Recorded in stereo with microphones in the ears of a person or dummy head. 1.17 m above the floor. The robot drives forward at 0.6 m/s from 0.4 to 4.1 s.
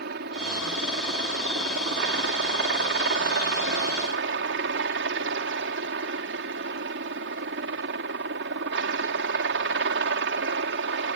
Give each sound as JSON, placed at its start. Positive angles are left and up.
{"t": 0.0, "sound": "a helicopter", "side_deg": -65}